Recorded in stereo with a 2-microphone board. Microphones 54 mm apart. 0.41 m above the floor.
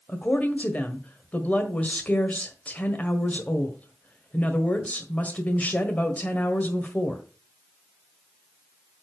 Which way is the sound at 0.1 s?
30° left (ahead or behind).